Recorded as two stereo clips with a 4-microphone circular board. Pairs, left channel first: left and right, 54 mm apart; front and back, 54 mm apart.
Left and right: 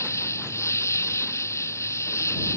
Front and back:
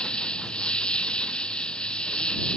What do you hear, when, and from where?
0.0 s an insect: 70° left